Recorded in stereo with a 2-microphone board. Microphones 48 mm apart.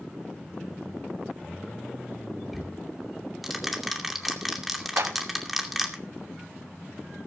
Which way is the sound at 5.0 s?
70° right (ahead or behind).